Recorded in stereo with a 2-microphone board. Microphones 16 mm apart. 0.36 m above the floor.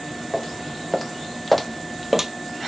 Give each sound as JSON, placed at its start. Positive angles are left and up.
{"t": 0.3, "sound": "footsteps", "side_deg": 25, "distance_m": 1.6}